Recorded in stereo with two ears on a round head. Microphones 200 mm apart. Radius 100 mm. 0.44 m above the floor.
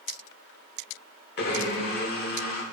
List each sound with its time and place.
1.4 s a blender: 45° left (ahead or behind), 1.2 m